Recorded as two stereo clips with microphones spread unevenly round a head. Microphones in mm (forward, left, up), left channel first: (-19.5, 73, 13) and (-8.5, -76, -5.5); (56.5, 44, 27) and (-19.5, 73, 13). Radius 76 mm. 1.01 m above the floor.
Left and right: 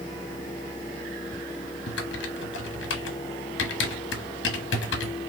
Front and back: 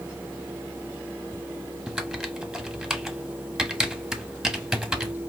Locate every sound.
1.9 s typing on a keyboard: 75° left, 1.1 m